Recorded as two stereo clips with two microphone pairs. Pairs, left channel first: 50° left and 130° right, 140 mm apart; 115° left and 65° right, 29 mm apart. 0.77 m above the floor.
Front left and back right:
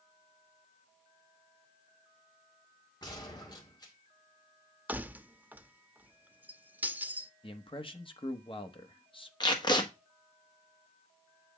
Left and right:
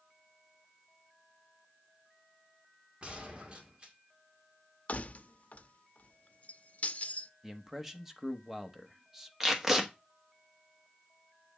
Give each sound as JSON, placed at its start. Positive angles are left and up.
{"t": 3.0, "sound": "a gunshot", "azimuth_deg": -10, "distance_m": 1.8}
{"t": 4.9, "sound": "keys jangling", "azimuth_deg": 150, "distance_m": 0.5}
{"t": 7.4, "sound": "a man speaking", "azimuth_deg": 10, "distance_m": 1.0}
{"t": 9.4, "sound": "tape being pulled", "azimuth_deg": 5, "distance_m": 1.2}